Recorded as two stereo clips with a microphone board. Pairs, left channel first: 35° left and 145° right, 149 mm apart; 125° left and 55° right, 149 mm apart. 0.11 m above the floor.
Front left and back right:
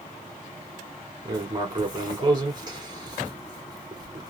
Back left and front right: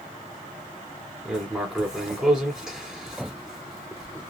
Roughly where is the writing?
Behind right.